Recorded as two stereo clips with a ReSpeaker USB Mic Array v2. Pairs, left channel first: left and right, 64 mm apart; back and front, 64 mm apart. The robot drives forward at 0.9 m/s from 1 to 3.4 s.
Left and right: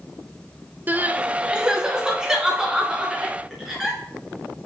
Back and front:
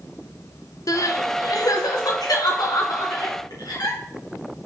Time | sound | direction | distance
0.9 | crying | 150° right | 0.5 m